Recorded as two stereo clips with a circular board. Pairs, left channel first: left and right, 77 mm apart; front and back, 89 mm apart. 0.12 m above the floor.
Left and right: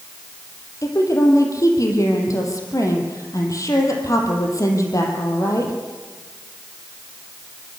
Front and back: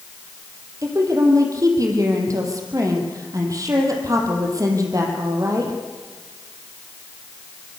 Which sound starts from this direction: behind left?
A woman speaking, at 0.8 s.